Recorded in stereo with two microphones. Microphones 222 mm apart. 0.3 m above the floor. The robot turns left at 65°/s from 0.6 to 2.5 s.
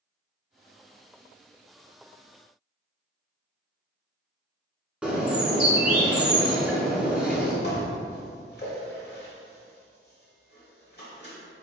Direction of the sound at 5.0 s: 5° right (ahead or behind).